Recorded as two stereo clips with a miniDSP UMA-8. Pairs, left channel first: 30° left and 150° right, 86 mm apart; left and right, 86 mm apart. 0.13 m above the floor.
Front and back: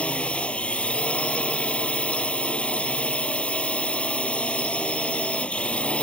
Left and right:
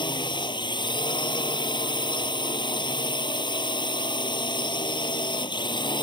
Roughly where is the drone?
Left.